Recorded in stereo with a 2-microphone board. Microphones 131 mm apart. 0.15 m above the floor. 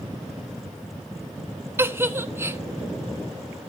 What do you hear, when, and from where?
1.8 s a giggle: 20° right (ahead or behind), 1.1 m